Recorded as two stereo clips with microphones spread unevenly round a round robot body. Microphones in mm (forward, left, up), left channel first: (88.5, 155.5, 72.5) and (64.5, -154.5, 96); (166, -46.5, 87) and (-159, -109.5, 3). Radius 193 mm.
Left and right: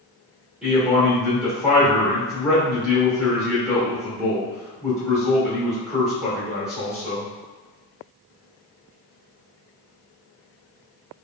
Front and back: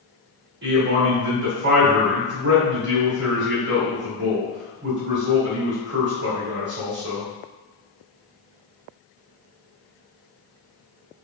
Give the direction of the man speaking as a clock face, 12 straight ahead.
6 o'clock.